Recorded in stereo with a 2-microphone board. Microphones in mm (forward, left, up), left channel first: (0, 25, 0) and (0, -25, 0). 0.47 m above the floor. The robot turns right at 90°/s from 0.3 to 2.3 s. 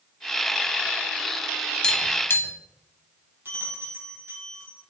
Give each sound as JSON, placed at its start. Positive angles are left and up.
{"t": 1.8, "sound": "tapping", "side_deg": 10, "distance_m": 0.8}
{"t": 3.5, "sound": "a bell", "side_deg": -50, "distance_m": 2.0}